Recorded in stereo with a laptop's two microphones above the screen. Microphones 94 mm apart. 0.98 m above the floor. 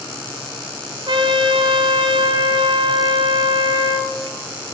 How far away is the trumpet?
About 0.5 m.